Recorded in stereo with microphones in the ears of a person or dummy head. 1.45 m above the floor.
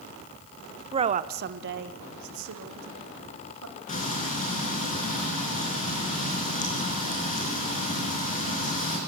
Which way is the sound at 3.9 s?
45° left (ahead or behind).